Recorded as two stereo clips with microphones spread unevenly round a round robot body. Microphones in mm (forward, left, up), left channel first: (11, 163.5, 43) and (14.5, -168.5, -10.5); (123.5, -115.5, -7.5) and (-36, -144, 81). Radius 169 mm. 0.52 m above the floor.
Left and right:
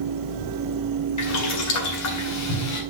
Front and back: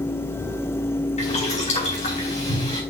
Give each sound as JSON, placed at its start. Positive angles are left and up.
{"t": 1.2, "sound": "boiling", "azimuth_deg": 50, "distance_m": 4.0}